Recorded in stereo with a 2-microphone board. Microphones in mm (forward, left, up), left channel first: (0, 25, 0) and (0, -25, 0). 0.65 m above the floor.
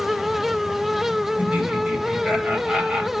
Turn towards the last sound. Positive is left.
turn(degrees=-30)  # may be behind; listen again after turning